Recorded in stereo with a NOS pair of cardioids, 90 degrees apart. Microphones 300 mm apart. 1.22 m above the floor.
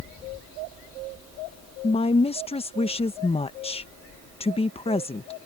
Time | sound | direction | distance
1.8 | a woman speaking | 20° left | ?